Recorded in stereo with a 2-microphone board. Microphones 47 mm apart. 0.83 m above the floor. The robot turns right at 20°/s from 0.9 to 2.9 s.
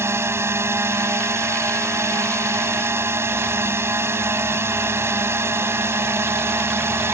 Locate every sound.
0.0 s a drone: 110° right; by 7.1 s 70° right